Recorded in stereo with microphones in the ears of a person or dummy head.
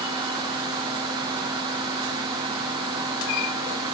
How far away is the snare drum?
No snare drum in this recording.